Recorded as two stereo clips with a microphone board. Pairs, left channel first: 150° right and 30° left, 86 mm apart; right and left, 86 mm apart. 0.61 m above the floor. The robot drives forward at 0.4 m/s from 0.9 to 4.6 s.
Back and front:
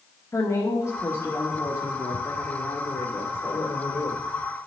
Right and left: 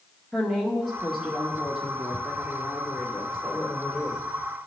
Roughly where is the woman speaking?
Behind.